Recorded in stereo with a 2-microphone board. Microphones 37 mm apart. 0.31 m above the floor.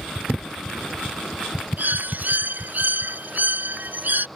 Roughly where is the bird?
Right.